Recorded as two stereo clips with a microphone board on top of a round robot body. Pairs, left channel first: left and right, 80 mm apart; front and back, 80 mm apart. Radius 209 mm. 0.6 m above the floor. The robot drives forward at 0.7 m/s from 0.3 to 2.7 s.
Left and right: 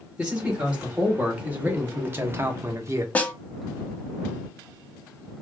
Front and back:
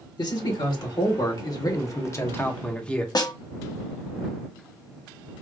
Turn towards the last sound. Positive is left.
turn(degrees=20)